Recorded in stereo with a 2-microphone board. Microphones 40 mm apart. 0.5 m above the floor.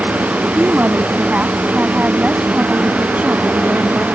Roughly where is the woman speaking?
Right.